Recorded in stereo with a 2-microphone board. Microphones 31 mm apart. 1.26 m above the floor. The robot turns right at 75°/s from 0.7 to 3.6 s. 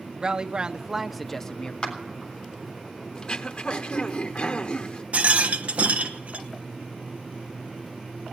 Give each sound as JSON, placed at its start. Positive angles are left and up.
{"t": 0.2, "sound": "a woman speaking", "azimuth_deg": -40, "distance_m": 0.7}
{"t": 1.8, "sound": "a clap", "side_deg": 30, "distance_m": 3.0}
{"t": 3.1, "sound": "throat clearing", "azimuth_deg": 40, "distance_m": 1.0}
{"t": 5.1, "sound": "a rattle", "side_deg": -50, "distance_m": 1.0}